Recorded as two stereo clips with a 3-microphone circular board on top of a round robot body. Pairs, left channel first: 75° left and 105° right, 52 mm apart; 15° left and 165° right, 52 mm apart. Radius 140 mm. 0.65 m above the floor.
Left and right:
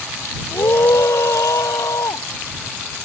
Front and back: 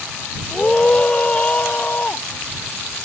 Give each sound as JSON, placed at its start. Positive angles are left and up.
{"t": 0.5, "sound": "a scream", "azimuth_deg": 85}